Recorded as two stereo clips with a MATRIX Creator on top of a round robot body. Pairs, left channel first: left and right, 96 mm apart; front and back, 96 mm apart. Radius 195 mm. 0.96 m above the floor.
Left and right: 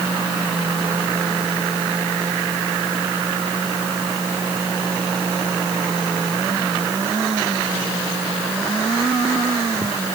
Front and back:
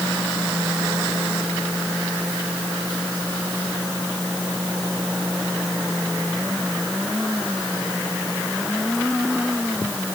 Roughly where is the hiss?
No hiss in this recording.